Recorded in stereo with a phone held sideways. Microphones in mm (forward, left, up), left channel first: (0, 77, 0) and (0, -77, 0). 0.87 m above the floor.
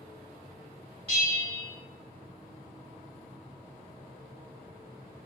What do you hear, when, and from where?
1.1 s a bell: 40° right (ahead or behind), 1.3 m